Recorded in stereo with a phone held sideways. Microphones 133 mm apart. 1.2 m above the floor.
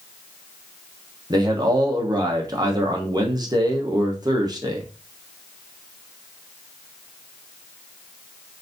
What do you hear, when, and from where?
1.3 s a man speaking: 30° right (ahead or behind), 1.0 m